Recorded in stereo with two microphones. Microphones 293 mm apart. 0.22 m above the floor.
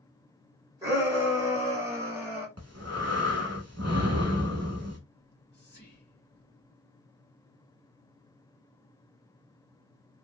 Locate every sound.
0.8 s a shout: 10° right (ahead or behind), 1.3 m
2.6 s breathing: 55° right (ahead or behind), 0.8 m
5.2 s whispering: 35° left (ahead or behind), 1.2 m